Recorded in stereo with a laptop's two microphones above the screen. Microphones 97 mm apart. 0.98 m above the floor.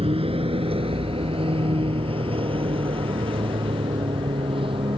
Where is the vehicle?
80° right; by 5.0 s 65° right (ahead or behind).